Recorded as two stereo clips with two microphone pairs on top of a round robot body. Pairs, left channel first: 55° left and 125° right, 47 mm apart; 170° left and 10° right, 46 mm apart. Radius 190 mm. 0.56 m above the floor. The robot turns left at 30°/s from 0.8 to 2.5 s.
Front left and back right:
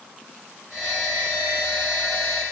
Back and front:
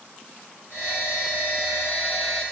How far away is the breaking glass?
No breaking glass in this recording.